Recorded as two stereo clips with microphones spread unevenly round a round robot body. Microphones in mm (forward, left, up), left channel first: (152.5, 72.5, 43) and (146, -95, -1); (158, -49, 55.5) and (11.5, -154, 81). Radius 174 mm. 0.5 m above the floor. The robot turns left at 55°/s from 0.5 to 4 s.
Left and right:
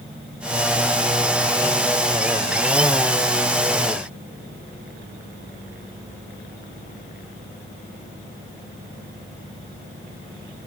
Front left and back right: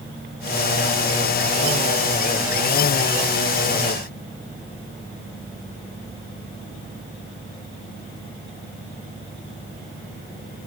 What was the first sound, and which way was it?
Only background noise.